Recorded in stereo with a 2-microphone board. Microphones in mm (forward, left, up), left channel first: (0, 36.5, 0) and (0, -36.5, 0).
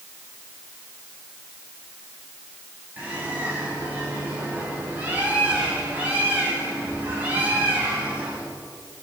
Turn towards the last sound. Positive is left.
turn(degrees=-25)  # may be behind; listen again after turning